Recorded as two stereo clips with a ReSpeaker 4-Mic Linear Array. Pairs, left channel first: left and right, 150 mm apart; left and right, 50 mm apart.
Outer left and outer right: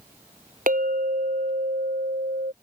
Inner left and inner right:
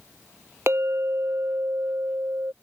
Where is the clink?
65° right (ahead or behind).